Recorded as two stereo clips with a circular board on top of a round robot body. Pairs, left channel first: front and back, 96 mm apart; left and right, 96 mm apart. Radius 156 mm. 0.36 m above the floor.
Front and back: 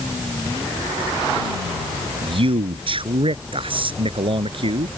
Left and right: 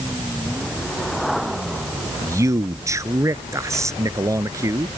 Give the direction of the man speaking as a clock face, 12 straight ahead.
5 o'clock.